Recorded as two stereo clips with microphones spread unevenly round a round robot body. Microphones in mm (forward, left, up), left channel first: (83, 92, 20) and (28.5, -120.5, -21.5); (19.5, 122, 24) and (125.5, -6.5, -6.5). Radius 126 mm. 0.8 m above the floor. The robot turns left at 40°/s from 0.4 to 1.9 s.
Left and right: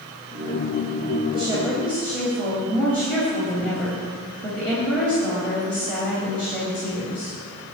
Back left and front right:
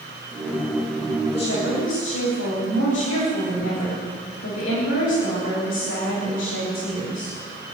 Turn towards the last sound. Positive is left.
turn(degrees=160)